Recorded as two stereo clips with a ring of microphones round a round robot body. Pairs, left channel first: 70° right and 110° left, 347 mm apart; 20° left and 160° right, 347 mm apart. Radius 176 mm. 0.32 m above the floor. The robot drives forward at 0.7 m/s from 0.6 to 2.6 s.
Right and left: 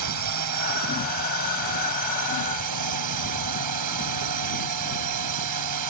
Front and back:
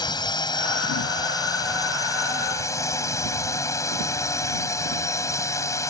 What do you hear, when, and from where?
0.0 s a drone: 100° left